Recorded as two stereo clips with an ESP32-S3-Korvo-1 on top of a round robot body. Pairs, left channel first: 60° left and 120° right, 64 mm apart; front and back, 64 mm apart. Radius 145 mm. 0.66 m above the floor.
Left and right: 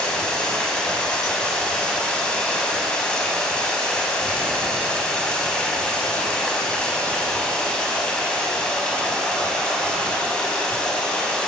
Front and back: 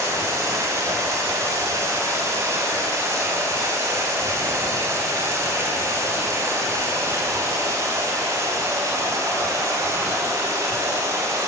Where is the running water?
135° left, 5.5 m.